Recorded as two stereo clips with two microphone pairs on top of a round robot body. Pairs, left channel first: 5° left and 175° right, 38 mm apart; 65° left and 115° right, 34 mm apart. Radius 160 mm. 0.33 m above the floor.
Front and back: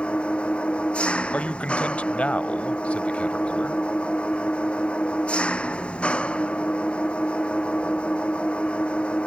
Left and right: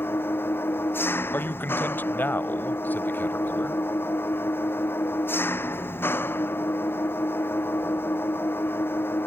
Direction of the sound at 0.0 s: 65° left.